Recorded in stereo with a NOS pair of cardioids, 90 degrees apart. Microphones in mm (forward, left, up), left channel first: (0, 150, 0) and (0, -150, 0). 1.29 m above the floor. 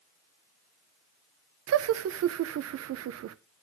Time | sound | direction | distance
1.7 | laughter | 55° right | 0.8 m